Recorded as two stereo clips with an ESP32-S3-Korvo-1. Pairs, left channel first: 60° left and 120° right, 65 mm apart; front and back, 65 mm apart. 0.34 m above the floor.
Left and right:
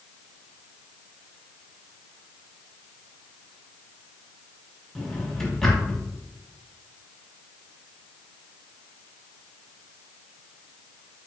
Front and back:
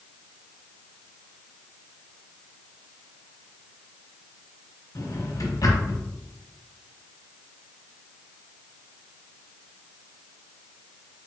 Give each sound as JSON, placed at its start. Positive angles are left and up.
{"t": 5.0, "sound": "a drawer", "azimuth_deg": -25, "distance_m": 1.4}